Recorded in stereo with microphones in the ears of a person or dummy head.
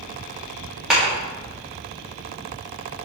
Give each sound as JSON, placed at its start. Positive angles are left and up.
{"t": 0.9, "sound": "a clap", "side_deg": 0, "distance_m": 3.0}